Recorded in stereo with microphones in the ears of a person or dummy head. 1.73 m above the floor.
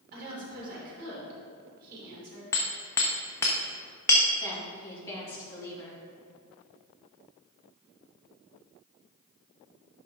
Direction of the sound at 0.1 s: 50° right (ahead or behind).